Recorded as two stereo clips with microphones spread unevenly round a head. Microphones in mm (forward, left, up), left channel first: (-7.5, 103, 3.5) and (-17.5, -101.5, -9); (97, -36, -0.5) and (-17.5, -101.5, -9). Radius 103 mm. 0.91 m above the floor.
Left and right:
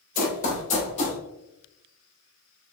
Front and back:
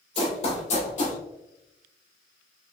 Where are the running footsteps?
55° left, 1.2 m; by 1.2 s 30° left, 1.6 m.